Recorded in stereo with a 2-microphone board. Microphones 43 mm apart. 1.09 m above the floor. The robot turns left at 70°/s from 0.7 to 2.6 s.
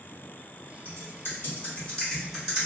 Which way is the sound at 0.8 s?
70° left (ahead or behind).